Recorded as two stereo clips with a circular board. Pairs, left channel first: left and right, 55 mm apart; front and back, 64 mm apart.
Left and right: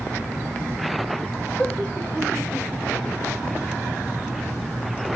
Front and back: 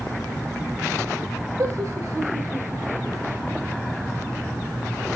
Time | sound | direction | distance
1.6 | laughter | 155° left | 4 m